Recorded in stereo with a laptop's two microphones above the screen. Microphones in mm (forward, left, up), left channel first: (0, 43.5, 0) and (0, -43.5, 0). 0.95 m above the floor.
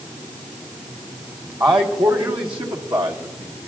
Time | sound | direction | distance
1.6 | a man speaking | 65° right (ahead or behind) | 3 m